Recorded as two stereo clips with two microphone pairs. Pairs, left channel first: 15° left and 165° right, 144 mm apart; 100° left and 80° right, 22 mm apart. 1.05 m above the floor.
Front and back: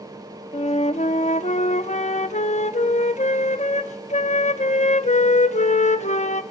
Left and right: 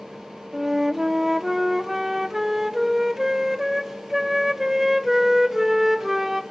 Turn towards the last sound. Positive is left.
turn(degrees=-5)